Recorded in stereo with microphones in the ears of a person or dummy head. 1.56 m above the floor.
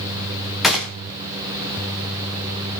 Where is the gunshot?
5° right (ahead or behind), 3.5 m.